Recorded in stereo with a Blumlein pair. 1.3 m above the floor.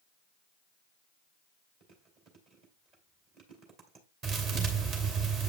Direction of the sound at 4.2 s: 35° right.